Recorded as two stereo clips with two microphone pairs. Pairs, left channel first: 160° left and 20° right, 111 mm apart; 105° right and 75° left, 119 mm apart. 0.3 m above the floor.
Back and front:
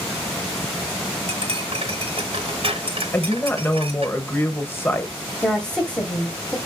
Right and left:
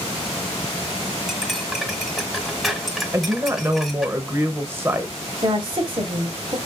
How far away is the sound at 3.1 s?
About 0.9 m.